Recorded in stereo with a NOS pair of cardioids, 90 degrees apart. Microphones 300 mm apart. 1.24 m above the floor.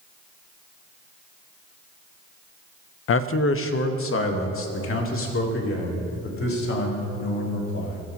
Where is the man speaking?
45° left, 0.5 m.